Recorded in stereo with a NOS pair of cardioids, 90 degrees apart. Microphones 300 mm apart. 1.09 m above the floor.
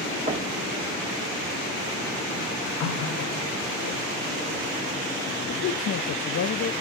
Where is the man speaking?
50° left, 0.8 m.